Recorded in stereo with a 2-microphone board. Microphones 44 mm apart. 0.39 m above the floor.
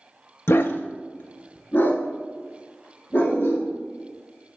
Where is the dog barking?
65° left (ahead or behind), 0.5 m; by 3.7 s 40° left (ahead or behind), 3.5 m.